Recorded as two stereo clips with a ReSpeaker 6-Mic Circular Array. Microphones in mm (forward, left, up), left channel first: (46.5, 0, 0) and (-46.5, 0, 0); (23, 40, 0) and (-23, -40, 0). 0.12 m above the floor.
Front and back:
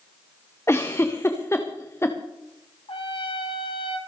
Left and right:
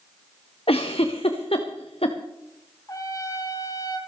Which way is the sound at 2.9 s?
10° left.